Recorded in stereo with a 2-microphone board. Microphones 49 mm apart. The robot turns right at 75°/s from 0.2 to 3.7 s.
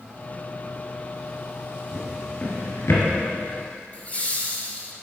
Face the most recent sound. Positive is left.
turn(degrees=30)  # may be behind; listen again after turning